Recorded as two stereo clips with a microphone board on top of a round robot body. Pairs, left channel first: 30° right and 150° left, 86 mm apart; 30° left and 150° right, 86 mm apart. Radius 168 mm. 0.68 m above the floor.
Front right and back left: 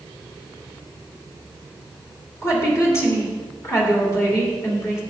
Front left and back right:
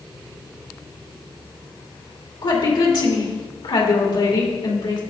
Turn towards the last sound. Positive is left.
turn(degrees=25)